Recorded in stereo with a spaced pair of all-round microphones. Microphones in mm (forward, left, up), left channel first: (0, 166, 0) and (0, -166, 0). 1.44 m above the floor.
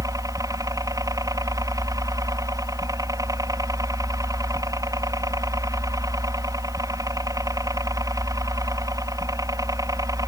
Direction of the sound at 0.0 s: 10° right (ahead or behind).